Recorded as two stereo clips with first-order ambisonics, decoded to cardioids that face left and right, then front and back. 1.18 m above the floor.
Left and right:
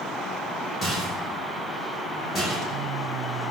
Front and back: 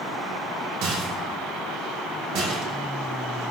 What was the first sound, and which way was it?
A rattle, 155° left.